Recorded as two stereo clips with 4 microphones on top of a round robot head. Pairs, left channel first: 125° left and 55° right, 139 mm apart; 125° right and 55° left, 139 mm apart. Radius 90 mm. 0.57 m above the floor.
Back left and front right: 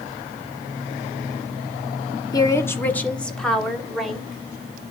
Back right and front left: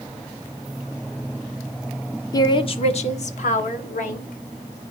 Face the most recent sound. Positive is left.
turn(degrees=-140)